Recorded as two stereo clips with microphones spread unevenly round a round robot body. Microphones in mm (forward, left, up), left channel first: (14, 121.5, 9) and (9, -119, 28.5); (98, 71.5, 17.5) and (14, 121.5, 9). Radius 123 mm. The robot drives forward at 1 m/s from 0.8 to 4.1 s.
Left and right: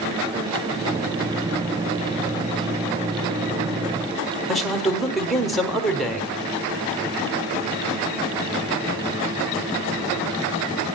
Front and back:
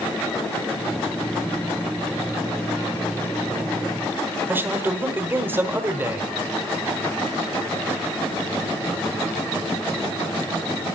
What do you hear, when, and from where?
4.5 s a man speaking: 170° left, 1.1 m